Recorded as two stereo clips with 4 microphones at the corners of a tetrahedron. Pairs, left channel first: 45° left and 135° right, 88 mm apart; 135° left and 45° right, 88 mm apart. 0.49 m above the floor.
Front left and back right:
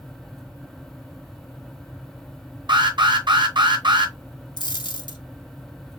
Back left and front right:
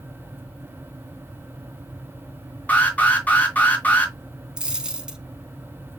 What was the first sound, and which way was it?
An alarm, 155° right.